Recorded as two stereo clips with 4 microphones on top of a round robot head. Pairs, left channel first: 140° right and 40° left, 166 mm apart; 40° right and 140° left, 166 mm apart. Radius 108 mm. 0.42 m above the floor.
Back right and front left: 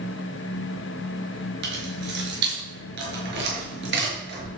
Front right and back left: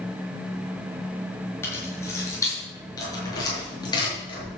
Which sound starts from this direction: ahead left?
Keys jangling, at 1.6 s.